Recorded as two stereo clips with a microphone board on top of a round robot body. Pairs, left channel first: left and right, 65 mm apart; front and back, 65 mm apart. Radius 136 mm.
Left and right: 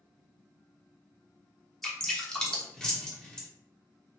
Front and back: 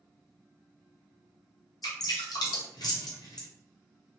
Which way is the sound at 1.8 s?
10° left.